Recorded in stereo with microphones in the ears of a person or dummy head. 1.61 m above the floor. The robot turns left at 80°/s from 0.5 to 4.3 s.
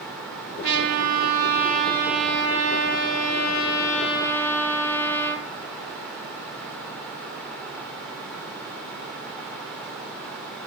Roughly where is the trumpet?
Ahead right.